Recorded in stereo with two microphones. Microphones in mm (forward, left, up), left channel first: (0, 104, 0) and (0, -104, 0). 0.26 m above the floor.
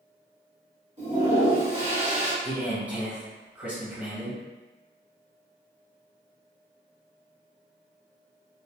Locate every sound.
1.0 s a toilet flushing: 35° right (ahead or behind), 1.5 m
2.4 s a man speaking: 10° right (ahead or behind), 1.3 m